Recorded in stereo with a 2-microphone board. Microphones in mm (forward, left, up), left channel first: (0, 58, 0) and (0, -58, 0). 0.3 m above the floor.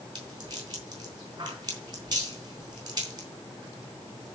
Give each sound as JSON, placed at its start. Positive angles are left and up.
{"t": 0.1, "sound": "a rattle", "side_deg": -35, "distance_m": 3.5}